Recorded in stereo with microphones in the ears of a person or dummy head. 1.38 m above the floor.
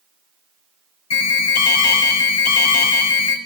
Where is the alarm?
80° left, 4 m.